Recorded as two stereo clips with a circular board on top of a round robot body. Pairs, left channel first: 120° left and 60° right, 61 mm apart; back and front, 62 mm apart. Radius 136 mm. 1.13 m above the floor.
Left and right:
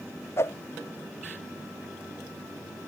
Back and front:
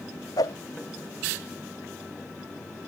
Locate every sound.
0.4 s a whoosh: 165° left